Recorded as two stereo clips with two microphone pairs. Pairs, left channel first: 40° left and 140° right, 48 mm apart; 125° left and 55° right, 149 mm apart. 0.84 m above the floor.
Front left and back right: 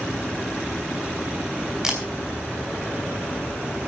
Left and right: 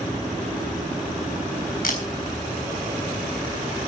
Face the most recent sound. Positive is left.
turn(degrees=145)